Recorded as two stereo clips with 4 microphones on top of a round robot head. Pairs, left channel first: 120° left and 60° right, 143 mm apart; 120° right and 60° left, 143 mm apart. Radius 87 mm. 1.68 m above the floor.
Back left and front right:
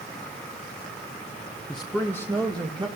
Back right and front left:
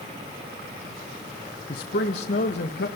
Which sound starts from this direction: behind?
A man speaking, at 1.7 s.